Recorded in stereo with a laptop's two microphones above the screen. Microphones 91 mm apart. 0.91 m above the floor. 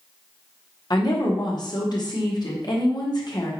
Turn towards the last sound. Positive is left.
turn(degrees=50)  # may be behind; listen again after turning